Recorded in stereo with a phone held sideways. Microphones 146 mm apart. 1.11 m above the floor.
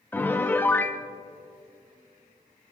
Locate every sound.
0.1 s a piano: 15° left (ahead or behind), 0.8 m